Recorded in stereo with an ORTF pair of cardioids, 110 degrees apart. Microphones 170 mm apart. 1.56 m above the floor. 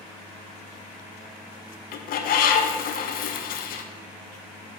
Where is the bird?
65° left, 0.9 m.